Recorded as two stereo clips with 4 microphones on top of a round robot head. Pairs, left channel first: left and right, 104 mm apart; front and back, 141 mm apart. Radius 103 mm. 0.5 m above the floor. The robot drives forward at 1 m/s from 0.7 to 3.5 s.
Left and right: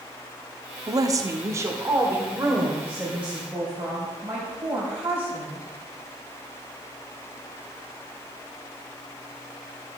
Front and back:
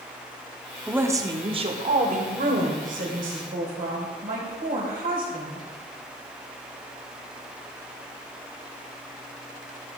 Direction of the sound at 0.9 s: 100° right.